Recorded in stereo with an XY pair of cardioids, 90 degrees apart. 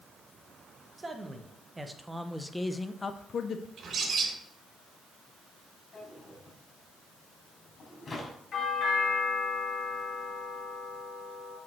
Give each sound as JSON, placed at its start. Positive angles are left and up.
{"t": 1.0, "sound": "a man speaking", "azimuth_deg": -25, "distance_m": 1.7}
{"t": 3.8, "sound": "a bird", "azimuth_deg": -55, "distance_m": 3.0}
{"t": 5.9, "sound": "a drawer", "azimuth_deg": 45, "distance_m": 3.5}
{"t": 8.5, "sound": "a doorbell", "azimuth_deg": 70, "distance_m": 4.5}